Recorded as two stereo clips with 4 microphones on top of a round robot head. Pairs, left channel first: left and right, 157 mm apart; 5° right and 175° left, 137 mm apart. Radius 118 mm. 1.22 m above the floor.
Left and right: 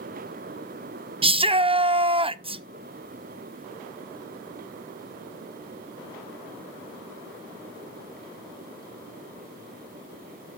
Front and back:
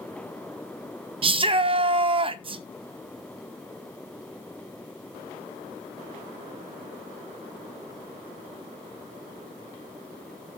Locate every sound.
1.2 s a shout: 140° right, 0.5 m